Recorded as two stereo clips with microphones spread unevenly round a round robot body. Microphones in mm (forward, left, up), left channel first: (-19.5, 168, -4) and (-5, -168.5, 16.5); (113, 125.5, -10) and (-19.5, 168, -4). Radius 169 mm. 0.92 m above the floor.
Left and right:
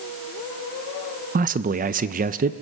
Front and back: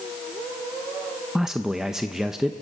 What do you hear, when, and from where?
1.4 s a man speaking: 110° right, 0.6 m